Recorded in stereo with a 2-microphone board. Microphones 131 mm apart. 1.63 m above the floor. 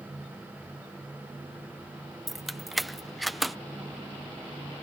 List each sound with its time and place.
2.3 s keys jangling: centre (ahead or behind)